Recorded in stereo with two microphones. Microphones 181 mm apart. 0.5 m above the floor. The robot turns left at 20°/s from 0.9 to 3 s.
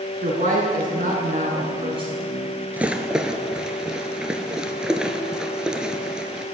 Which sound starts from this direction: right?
A woman speaking, at 0.2 s.